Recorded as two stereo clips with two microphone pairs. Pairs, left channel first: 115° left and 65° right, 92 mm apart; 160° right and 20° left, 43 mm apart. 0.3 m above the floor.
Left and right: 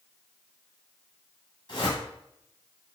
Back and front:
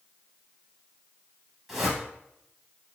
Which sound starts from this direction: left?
A whoosh, at 1.7 s.